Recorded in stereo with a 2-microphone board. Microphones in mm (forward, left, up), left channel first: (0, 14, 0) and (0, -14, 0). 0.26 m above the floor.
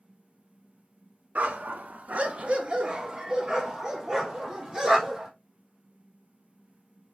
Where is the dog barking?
75° right (ahead or behind), 0.7 m; by 5.3 s 15° right (ahead or behind), 2.5 m.